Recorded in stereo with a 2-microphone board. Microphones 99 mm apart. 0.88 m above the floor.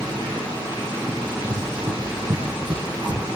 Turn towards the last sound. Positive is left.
turn(degrees=-45)  # may be behind; listen again after turning